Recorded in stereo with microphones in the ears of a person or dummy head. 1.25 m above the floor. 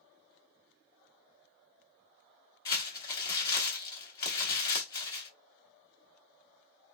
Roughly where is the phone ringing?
I don't hear a phone ringing.